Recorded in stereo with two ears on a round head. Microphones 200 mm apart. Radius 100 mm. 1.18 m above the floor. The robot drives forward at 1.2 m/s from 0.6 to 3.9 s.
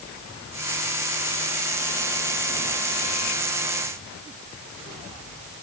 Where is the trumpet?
I don't hear a trumpet.